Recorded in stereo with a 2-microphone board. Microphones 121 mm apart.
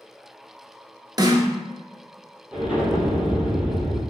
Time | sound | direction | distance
1.2 | a snare drum | 35° right (ahead or behind) | 0.6 m
2.5 | an explosion | 10° right (ahead or behind) | 0.9 m